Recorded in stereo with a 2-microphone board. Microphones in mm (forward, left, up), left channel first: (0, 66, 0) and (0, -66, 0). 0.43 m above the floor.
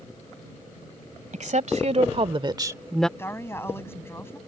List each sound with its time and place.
1.3 s a woman speaking: 65° right (ahead or behind); by 3.1 s 5° left (ahead or behind)
3.2 s a woman speaking: 20° left (ahead or behind)